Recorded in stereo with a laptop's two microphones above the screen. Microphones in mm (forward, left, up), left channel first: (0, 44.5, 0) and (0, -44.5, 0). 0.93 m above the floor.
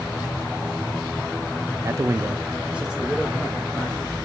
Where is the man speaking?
35° right (ahead or behind), 0.6 m; by 4.2 s 5° left (ahead or behind), 1.3 m.